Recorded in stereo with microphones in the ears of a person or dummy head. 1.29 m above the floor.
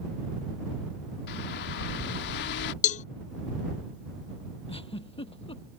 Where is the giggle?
25° left (ahead or behind).